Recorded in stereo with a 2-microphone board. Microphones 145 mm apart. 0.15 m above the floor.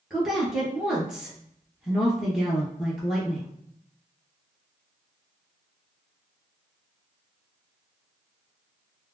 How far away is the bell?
I don't hear a bell.